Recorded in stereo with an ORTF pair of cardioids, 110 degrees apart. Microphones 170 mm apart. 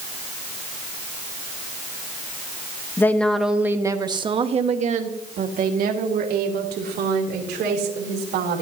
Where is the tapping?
No tapping in this recording.